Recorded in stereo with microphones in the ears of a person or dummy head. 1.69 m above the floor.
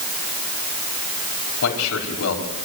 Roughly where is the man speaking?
Left.